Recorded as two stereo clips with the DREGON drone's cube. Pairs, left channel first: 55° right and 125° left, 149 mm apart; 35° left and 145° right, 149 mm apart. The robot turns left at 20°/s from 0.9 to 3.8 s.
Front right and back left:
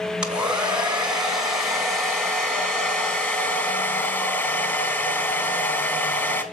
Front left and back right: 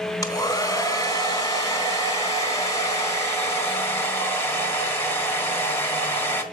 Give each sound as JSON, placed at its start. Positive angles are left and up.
{"t": 0.2, "sound": "a hair dryer", "azimuth_deg": 50, "distance_m": 1.5}